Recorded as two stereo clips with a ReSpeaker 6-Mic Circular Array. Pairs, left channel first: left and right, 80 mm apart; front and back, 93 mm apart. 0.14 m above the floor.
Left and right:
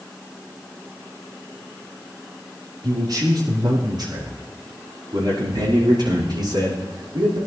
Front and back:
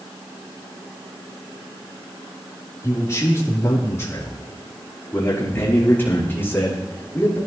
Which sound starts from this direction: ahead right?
A man speaking, at 2.8 s.